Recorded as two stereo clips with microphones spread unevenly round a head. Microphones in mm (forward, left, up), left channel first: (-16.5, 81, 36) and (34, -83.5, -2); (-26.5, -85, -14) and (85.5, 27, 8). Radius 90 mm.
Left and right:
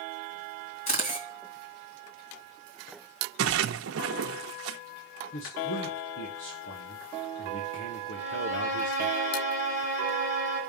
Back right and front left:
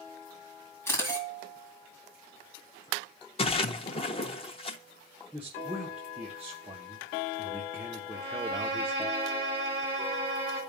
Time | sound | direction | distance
0.9 | a camera shutter | 145° left | 2.5 m
3.4 | a splash | 80° right | 0.8 m
5.3 | a man speaking | 130° left | 1.0 m
8.1 | a violin | 130° left | 4.5 m